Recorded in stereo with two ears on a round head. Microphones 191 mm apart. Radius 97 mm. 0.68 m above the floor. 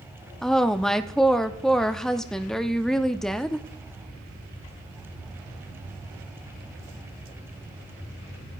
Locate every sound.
0.4 s a woman speaking: centre (ahead or behind), 0.7 m